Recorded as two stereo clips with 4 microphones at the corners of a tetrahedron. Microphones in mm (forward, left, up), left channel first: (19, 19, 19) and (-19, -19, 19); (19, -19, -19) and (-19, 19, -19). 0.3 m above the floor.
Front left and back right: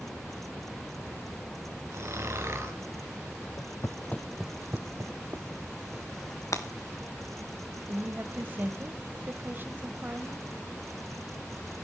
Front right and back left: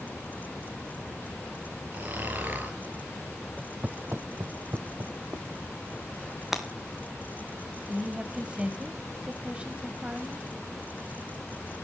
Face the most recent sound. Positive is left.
turn(degrees=-165)